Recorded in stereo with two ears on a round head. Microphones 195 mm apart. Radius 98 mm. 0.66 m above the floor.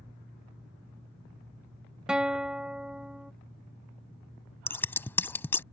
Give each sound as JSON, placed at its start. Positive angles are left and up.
{"t": 2.1, "sound": "a guitar", "side_deg": -5}
{"t": 4.7, "sound": "scissors", "side_deg": 10}